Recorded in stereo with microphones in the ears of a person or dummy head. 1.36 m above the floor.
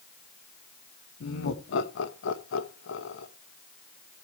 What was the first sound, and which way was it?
Laughter, 70° left (ahead or behind).